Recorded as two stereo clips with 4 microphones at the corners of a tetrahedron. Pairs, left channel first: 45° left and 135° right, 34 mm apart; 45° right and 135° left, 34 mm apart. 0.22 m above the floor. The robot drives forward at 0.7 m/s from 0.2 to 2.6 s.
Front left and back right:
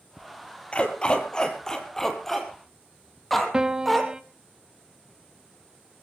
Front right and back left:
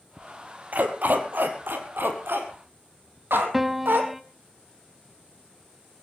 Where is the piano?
150° right, 1.0 m.